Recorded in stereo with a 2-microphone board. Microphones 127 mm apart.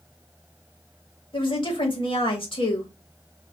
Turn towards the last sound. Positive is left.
turn(degrees=45)  # may be behind; listen again after turning